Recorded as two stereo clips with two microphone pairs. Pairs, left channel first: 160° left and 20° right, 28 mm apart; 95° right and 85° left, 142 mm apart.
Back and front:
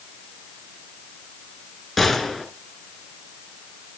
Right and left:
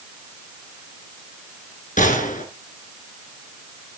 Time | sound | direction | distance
2.0 | a gunshot | 115° right | 3 m